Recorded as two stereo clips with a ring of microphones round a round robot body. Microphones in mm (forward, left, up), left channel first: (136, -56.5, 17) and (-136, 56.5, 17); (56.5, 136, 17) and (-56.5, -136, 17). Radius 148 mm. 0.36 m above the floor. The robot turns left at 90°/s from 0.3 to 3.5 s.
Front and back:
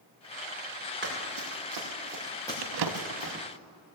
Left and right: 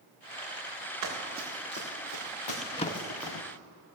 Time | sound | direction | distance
1.0 | running footsteps | 145° right | 4 m
2.6 | a drawer | 155° left | 0.6 m